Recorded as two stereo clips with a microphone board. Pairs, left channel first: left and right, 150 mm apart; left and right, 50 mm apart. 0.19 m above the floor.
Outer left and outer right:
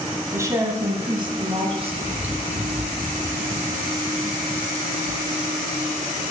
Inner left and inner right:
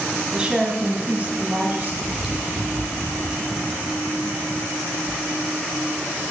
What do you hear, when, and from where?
0.3 s a woman speaking: 20° right (ahead or behind), 1.3 m; by 1.9 s 40° right (ahead or behind), 1.8 m
2.0 s chewing: 10° right (ahead or behind), 2.5 m